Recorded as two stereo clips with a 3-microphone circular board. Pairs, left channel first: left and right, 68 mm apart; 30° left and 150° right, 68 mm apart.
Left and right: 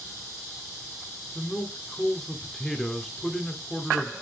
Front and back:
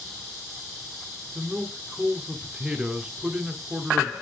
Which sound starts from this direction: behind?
A man speaking, at 1.4 s.